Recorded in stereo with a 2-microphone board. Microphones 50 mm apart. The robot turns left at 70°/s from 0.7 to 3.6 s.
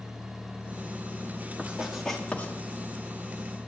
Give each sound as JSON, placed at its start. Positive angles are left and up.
{"t": 1.6, "sound": "writing", "side_deg": -30, "distance_m": 1.8}